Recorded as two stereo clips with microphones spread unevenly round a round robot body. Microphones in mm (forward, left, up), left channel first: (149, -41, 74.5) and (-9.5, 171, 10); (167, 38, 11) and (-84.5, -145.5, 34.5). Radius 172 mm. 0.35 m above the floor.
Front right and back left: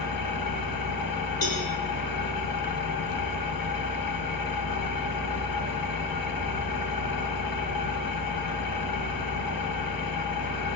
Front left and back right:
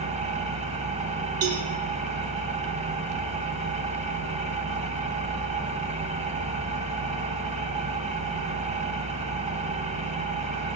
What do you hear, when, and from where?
0.0 s an engine running: 75° right, 1.2 m
1.4 s a cowbell: 105° right, 2.5 m